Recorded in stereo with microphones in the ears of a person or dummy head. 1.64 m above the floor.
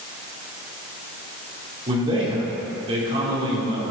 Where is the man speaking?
30° right (ahead or behind), 4.5 m.